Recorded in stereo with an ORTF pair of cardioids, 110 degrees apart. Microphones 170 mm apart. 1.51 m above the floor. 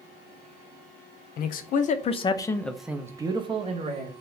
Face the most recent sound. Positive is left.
turn(degrees=-45)